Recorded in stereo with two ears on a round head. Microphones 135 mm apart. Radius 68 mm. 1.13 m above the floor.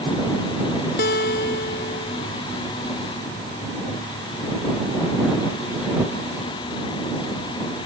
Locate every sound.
1.0 s a guitar: 65° left (ahead or behind)